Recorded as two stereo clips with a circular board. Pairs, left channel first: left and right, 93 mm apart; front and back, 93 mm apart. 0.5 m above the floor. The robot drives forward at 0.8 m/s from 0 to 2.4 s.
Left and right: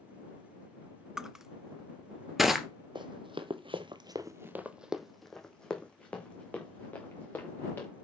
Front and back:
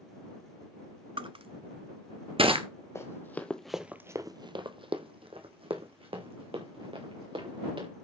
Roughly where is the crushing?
Behind.